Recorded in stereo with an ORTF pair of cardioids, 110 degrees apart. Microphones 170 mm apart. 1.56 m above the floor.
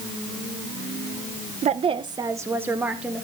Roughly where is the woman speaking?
Ahead right.